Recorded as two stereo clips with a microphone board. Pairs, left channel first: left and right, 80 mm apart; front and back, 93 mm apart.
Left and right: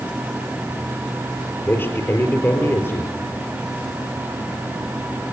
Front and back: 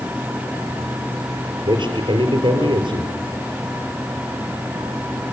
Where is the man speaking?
150° left, 4 m.